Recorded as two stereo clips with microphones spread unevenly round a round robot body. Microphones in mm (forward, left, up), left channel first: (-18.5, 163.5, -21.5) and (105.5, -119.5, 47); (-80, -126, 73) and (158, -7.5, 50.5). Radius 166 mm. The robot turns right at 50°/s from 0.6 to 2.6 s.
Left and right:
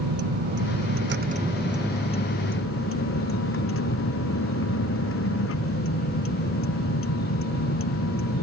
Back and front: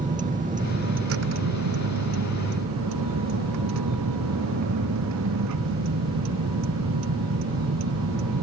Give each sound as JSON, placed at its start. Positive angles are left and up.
{"t": 0.0, "sound": "a vehicle", "azimuth_deg": -35}